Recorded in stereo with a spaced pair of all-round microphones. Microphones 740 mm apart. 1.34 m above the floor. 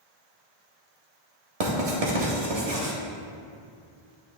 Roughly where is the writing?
Right.